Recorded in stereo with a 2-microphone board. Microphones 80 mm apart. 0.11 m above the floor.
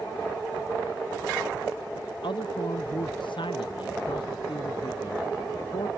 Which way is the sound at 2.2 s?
80° left.